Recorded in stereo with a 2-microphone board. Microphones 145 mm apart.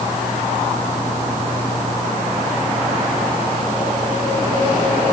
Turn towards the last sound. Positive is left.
No sound to turn to.